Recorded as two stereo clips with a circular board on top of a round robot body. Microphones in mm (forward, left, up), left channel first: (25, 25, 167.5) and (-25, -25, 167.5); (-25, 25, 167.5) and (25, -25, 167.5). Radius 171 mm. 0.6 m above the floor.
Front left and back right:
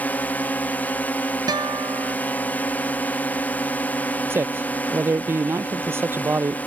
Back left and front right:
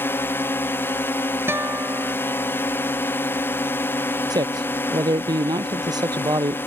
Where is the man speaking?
75° right.